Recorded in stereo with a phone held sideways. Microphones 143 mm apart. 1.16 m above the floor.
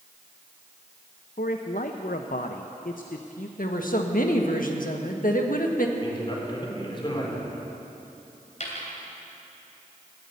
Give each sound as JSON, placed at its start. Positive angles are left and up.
{"t": 1.4, "sound": "a man speaking", "side_deg": 70, "distance_m": 0.7}
{"t": 3.6, "sound": "a woman speaking", "side_deg": 75, "distance_m": 1.6}
{"t": 6.0, "sound": "a man speaking", "side_deg": 35, "distance_m": 3.5}
{"t": 8.6, "sound": "a dropped coin", "side_deg": 55, "distance_m": 3.0}